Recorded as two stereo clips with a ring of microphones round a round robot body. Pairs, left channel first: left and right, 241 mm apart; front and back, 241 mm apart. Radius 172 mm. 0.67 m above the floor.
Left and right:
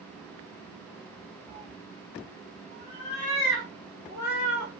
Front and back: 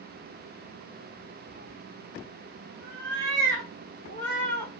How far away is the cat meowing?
About 0.8 m.